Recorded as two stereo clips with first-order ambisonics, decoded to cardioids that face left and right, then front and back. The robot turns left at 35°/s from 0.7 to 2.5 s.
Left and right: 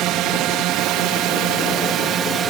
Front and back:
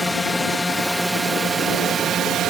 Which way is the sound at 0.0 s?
80° right.